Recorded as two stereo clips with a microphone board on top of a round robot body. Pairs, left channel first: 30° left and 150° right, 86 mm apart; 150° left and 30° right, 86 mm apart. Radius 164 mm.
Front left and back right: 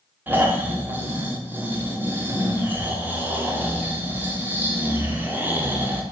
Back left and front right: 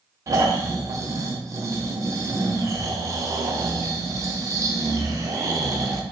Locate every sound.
0.3 s snoring: 80° right, 0.6 m